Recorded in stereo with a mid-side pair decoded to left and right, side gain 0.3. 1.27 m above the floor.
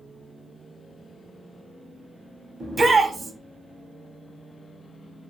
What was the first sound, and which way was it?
A shout, 50° right.